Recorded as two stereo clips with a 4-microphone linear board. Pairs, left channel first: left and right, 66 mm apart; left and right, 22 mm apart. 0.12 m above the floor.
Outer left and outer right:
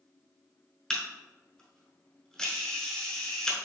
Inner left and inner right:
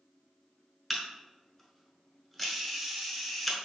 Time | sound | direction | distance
0.9 | a camera shutter | 10° left (ahead or behind) | 1.0 m